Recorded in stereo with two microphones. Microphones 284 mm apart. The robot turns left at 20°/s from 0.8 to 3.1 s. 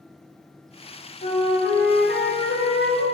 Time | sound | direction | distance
1.2 | a flute | 145° left | 1.3 m